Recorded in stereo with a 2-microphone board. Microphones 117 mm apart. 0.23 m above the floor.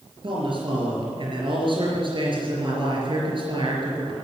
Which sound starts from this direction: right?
A man speaking, at 0.2 s.